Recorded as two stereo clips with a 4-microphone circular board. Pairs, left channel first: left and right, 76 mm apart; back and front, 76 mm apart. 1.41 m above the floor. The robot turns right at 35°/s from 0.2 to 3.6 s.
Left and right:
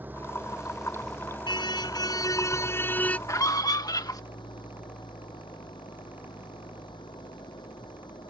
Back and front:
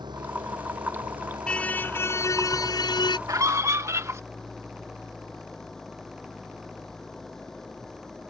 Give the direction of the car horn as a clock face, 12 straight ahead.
9 o'clock.